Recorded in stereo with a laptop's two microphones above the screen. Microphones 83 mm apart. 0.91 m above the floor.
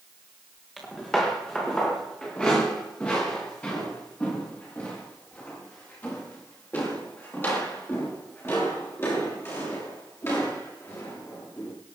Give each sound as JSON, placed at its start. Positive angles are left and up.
{"t": 0.8, "sound": "footsteps", "side_deg": 5, "distance_m": 4.0}